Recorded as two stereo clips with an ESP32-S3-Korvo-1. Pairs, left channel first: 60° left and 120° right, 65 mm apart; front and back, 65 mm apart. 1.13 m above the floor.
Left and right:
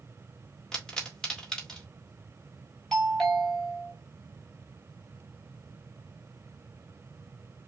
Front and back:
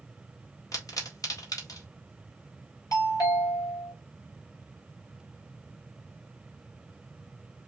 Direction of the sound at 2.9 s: 25° right.